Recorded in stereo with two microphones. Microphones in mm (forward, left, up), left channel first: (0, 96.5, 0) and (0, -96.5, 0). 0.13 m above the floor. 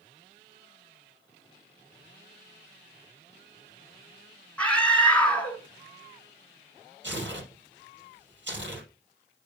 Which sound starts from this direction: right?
Tearing paper, at 7.0 s.